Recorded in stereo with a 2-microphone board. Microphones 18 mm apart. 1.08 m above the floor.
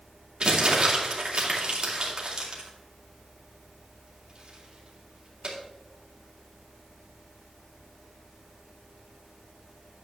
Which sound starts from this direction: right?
Crumpling, at 0.4 s.